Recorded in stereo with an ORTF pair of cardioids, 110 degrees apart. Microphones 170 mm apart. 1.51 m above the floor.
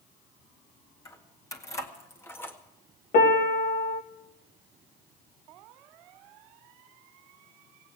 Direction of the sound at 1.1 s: 20° left.